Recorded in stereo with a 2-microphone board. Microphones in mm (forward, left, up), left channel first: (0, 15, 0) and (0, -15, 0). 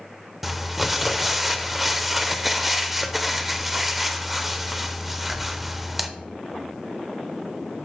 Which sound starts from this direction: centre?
Crumpling, at 0.4 s.